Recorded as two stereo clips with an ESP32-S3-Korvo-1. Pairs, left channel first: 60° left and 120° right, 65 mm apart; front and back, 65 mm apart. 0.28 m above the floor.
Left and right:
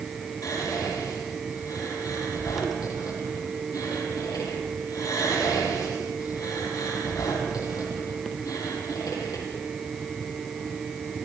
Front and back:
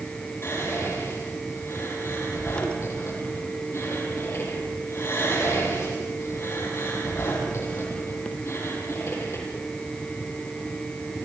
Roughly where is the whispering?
Ahead left.